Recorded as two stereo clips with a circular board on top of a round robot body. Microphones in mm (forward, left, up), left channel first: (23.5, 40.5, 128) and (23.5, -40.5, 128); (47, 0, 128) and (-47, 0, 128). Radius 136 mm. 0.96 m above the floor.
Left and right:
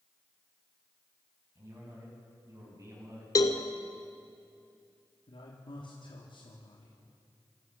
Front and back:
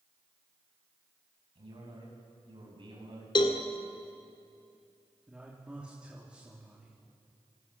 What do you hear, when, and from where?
1.6 s a man speaking: 145° right, 8 m
3.4 s a cowbell: 45° left, 1.4 m
5.3 s a man speaking: 100° left, 3 m